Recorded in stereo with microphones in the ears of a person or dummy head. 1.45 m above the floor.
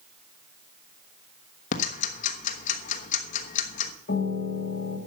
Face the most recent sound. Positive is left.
turn(degrees=55)  # may be behind; listen again after turning